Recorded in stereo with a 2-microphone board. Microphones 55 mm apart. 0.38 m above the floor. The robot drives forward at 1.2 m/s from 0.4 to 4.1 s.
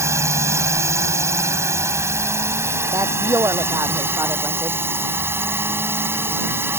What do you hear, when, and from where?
0.0 s a drone: 60° right (ahead or behind); by 6.8 s 50° right (ahead or behind)
2.9 s a woman speaking: 70° right (ahead or behind); by 4.8 s 65° right (ahead or behind)